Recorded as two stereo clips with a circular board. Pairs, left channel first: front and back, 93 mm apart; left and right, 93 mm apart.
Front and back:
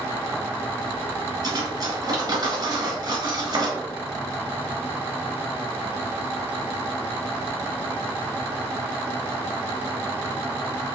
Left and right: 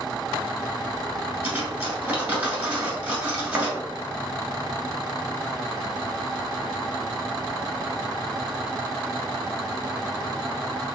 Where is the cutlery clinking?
155° right, 1.3 m.